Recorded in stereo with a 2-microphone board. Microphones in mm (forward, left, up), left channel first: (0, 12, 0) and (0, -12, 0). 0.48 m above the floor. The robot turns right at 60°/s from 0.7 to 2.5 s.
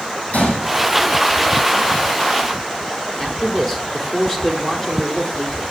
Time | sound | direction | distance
0.3 | a gunshot | 75° left (ahead or behind) | 4 m
3.2 | a man speaking | 15° left (ahead or behind) | 1.2 m